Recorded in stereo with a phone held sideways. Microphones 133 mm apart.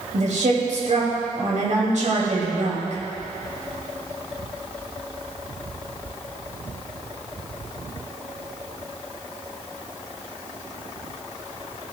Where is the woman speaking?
70° right (ahead or behind), 2.5 m.